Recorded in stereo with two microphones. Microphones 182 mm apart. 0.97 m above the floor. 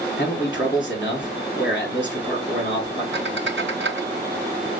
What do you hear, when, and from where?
0.2 s a man speaking: 65° left (ahead or behind), 2.5 m
3.1 s a squeak: 80° right, 1.1 m